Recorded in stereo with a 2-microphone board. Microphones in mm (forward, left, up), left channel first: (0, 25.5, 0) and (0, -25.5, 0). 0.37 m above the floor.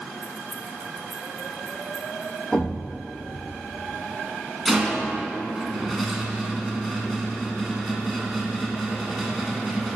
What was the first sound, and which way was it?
Keys jangling, 20° right (ahead or behind).